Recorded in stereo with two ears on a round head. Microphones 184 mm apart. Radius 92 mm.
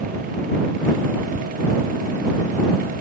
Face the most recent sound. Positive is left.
turn(degrees=25)  # may be behind; listen again after turning